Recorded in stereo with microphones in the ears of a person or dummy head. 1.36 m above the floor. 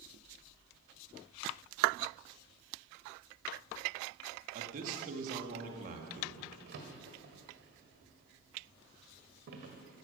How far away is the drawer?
About 1.5 m.